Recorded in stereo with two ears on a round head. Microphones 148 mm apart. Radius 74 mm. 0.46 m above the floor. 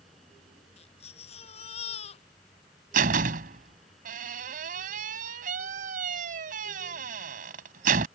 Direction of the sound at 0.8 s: 40° left (ahead or behind).